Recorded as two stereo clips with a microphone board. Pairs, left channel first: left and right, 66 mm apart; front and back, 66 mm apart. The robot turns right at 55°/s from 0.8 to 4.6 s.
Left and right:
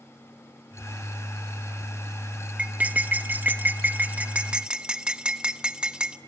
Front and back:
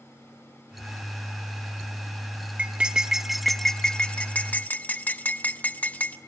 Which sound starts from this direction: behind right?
Cutlery clinking, at 2.6 s.